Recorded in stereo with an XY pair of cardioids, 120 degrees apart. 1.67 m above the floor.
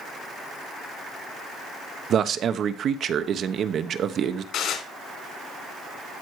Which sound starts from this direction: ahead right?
A man speaking, at 2.1 s.